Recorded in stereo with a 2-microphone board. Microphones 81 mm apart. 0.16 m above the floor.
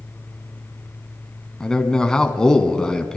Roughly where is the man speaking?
Centre.